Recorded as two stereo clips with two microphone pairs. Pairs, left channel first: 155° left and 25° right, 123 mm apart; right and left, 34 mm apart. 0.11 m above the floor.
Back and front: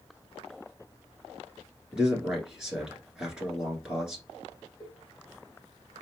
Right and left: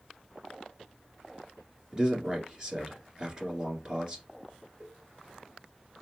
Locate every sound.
1.9 s a man speaking: 55° left, 1.7 m
4.8 s a cowbell: 90° left, 2.5 m